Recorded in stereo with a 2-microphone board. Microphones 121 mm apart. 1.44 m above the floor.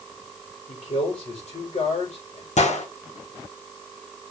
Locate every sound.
0.7 s a man speaking: 75° left (ahead or behind), 6 m
2.6 s a gunshot: 75° left (ahead or behind), 2.5 m